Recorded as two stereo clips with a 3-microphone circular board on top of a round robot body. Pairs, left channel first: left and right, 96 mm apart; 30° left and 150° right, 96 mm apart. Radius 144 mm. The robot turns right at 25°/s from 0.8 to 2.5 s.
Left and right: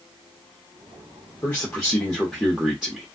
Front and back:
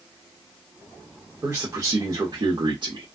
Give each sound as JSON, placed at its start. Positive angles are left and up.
{"t": 1.4, "sound": "a man speaking", "azimuth_deg": 160, "distance_m": 1.3}